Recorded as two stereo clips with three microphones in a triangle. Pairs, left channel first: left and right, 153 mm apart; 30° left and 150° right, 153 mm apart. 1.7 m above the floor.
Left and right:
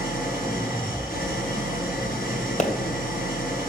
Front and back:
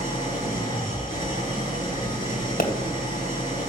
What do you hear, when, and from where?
0.0 s an engine running: 90° left, 7.5 m
2.6 s a pop: 50° left, 1.8 m